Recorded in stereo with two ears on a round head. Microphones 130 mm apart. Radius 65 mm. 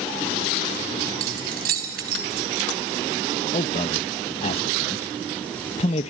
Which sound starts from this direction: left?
A man speaking, at 3.5 s.